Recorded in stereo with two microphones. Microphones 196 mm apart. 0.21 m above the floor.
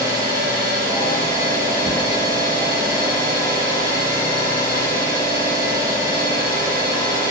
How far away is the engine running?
About 1.4 m.